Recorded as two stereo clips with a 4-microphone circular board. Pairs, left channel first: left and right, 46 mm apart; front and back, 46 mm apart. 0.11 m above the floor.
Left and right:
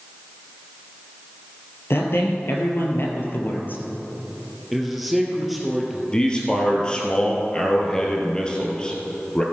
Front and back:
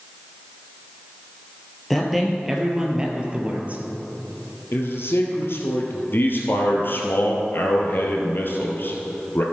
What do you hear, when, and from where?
1.9 s a man speaking: 85° left, 2.0 m; by 3.8 s 130° left, 2 m
4.7 s a man speaking: straight ahead, 2.5 m
6.1 s a man speaking: 20° left, 2 m